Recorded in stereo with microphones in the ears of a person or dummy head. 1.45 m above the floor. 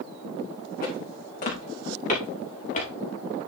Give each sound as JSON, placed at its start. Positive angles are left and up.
{"t": 0.8, "sound": "footsteps", "side_deg": 45, "distance_m": 6.5}